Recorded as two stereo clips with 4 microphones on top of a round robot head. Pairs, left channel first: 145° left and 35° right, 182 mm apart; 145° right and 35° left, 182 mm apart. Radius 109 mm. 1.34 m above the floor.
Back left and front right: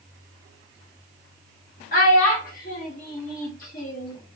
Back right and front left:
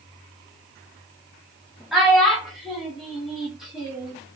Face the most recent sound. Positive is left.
turn(degrees=120)